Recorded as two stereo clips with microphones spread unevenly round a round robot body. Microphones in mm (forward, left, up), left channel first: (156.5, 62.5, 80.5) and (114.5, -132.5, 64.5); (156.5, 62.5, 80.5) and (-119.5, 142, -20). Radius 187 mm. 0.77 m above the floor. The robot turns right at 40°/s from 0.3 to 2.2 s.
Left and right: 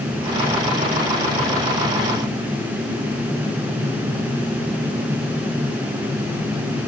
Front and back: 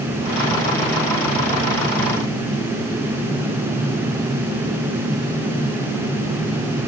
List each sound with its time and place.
Only background noise.